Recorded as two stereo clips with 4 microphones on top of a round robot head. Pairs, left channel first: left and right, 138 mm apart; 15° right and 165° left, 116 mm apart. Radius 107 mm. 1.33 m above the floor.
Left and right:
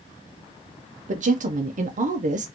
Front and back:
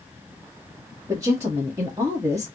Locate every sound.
1.1 s a woman speaking: 125° right, 0.8 m